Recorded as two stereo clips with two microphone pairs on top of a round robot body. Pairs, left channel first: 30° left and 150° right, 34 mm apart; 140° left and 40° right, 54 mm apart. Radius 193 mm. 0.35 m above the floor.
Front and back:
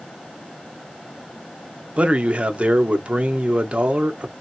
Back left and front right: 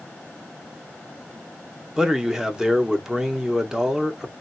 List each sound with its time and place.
2.0 s a man speaking: 130° right, 1.2 m